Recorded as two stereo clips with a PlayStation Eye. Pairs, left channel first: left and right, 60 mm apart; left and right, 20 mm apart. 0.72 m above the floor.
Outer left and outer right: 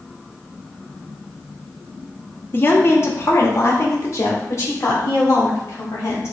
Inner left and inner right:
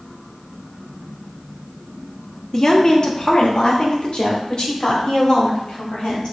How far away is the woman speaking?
About 0.8 m.